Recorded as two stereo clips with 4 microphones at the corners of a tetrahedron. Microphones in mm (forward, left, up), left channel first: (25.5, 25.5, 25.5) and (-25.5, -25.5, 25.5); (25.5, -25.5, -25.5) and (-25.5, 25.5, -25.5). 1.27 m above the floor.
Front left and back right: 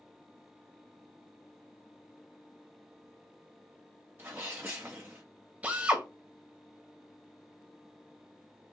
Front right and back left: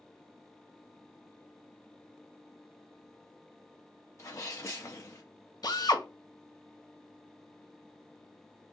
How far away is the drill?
About 0.9 m.